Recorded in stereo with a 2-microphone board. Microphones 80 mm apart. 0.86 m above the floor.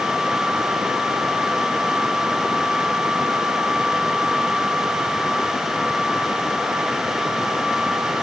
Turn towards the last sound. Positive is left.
No sound to turn to.